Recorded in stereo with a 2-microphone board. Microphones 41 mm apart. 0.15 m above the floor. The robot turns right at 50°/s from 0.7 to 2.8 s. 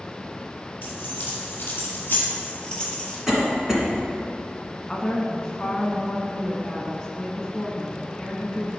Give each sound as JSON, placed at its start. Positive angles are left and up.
{"t": 0.8, "sound": "keys jangling", "side_deg": 60, "distance_m": 2.0}
{"t": 3.3, "sound": "a cough", "side_deg": -15, "distance_m": 2.0}
{"t": 4.9, "sound": "a woman speaking", "side_deg": 20, "distance_m": 1.2}